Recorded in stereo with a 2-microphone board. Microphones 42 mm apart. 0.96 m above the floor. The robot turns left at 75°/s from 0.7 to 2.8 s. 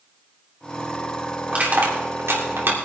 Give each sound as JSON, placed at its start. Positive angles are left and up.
{"t": 1.5, "sound": "crushing", "side_deg": -30, "distance_m": 2.5}